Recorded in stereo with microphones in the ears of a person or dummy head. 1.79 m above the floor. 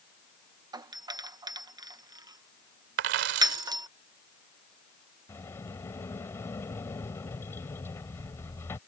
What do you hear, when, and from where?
0.7 s a doorbell: 20° right (ahead or behind)
3.0 s a dropped coin: 50° right (ahead or behind)
5.3 s a sliding door: 15° left (ahead or behind)